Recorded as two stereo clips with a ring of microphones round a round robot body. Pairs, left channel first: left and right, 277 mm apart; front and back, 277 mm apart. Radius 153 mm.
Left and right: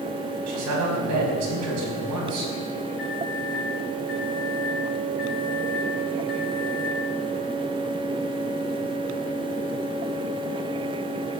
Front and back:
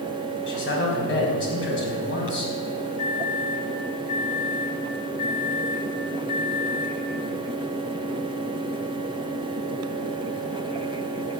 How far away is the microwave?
About 4 m.